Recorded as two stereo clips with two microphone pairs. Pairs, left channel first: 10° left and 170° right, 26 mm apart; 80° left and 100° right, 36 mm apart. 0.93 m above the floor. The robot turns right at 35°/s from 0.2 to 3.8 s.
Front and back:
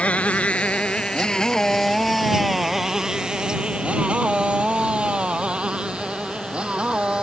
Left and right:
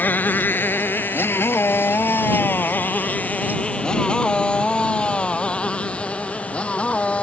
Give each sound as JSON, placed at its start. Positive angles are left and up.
{"t": 0.0, "sound": "a motorcycle", "azimuth_deg": 45}